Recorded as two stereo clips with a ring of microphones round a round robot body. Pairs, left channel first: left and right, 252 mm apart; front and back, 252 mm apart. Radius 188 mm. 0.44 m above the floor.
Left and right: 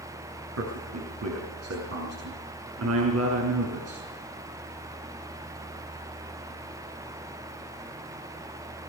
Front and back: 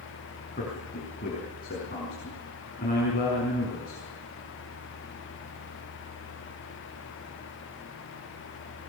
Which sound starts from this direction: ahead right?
A man speaking, at 0.6 s.